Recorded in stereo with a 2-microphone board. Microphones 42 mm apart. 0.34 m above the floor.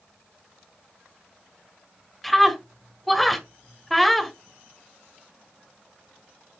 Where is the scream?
Centre (ahead or behind), 1.3 m.